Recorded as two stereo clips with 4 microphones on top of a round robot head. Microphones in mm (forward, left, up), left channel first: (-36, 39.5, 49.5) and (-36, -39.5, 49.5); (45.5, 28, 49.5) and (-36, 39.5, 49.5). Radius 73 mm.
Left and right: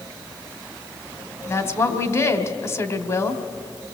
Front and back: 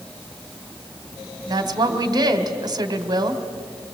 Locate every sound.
1.5 s a woman speaking: 140° left, 2.5 m